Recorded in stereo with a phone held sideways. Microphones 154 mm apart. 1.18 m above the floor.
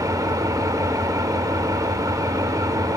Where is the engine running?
25° right (ahead or behind), 1.6 m.